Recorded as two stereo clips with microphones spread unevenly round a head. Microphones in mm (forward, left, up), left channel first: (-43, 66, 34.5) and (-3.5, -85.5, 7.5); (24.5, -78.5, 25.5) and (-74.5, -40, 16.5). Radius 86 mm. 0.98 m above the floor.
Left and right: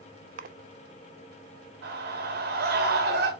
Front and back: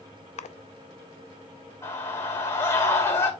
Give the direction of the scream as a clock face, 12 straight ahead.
3 o'clock.